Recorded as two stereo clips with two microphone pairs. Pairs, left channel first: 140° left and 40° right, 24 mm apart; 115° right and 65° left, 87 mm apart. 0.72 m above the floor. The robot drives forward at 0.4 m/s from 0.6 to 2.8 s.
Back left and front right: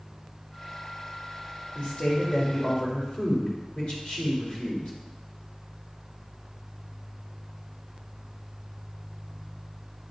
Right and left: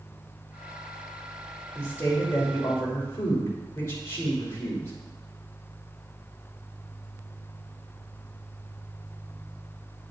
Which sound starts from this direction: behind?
A woman speaking, at 1.8 s.